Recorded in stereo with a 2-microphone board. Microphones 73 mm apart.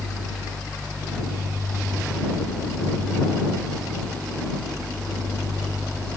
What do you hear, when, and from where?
Only background noise.